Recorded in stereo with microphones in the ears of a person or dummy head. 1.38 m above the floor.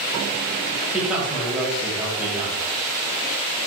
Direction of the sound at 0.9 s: 5° right (ahead or behind).